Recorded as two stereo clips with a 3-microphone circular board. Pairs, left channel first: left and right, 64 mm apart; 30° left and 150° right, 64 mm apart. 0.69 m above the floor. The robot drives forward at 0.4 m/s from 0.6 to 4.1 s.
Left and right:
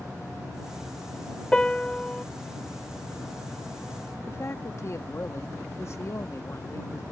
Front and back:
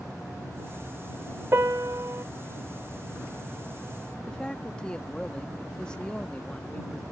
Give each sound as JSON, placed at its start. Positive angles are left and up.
{"t": 1.5, "sound": "a piano", "azimuth_deg": 165}
{"t": 4.3, "sound": "a man speaking", "azimuth_deg": 100}